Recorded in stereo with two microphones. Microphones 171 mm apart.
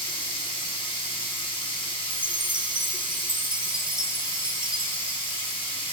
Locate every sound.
0.0 s running water: 30° left (ahead or behind), 1.6 m
2.1 s a chime: 25° right (ahead or behind), 0.6 m